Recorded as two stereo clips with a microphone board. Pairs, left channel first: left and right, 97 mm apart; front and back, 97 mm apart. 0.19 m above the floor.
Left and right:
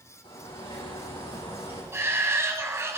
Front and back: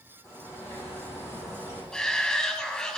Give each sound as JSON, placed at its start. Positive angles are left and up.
{"t": 0.2, "sound": "a bird", "azimuth_deg": 65, "distance_m": 7.5}
{"t": 1.9, "sound": "a shout", "azimuth_deg": -75, "distance_m": 1.2}